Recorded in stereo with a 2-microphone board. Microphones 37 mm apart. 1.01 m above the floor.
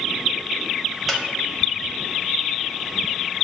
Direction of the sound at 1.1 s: Centre (ahead or behind).